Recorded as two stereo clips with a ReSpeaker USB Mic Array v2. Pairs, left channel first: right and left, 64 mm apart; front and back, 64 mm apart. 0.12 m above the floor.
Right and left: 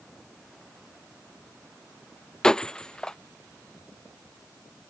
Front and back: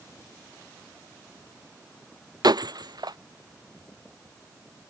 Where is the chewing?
No chewing in this recording.